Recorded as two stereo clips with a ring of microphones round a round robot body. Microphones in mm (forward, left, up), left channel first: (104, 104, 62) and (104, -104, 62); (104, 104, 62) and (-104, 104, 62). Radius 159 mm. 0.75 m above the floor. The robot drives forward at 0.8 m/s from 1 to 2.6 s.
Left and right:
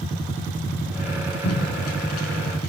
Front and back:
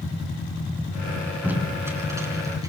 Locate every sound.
1.4 s tape being pulled: 100° left, 6 m; by 2.7 s 105° left, 6 m